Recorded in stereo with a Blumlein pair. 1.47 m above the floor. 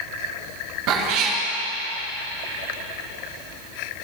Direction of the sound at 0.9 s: 40° right.